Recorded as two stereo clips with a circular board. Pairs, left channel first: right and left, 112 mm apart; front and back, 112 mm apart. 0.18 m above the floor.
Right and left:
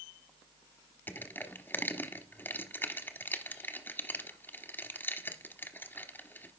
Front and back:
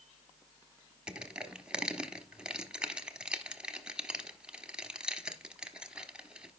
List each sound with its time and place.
1.1 s crushing: 115° right, 1.0 m